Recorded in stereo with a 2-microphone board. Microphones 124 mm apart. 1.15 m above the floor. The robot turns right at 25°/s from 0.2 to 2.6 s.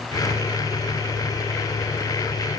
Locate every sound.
Only background noise.